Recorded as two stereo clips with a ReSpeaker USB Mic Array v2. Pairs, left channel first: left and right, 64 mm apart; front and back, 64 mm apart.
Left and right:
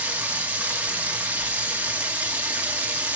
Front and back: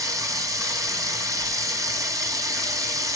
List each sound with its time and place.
0.0 s running water: 155° right, 1.5 m